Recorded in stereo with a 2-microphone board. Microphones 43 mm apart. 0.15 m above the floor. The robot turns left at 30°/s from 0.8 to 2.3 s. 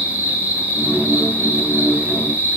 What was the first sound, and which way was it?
An insect, 80° right.